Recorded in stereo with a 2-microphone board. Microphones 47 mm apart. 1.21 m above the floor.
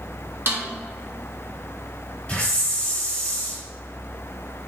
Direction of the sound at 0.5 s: 50° right (ahead or behind).